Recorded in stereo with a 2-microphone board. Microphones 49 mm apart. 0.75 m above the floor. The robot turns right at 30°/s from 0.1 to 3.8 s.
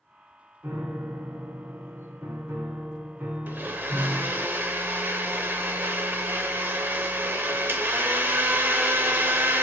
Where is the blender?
45° right (ahead or behind), 0.7 m; by 9.6 s 50° right (ahead or behind), 0.7 m.